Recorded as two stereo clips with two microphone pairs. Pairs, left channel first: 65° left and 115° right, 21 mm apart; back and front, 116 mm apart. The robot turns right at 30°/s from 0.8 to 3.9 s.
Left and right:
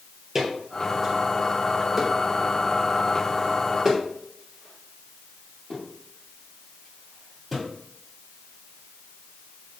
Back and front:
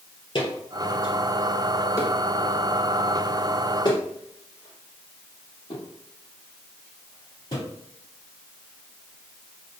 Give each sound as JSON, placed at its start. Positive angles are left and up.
{"t": 0.3, "sound": "footsteps", "azimuth_deg": 170, "distance_m": 2.0}